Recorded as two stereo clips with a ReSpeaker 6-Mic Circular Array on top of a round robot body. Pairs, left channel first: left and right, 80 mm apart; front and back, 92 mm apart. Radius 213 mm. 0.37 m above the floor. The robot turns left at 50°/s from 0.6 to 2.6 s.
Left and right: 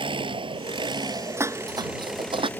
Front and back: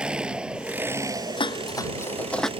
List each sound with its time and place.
0.0 s an engine running: 100° right; by 2.6 s 160° left
1.4 s dishes clattering: 30° right; by 2.5 s 85° right